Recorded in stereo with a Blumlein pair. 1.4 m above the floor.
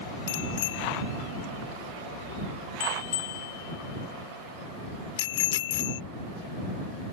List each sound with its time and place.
0.3 s a bicycle bell: 55° left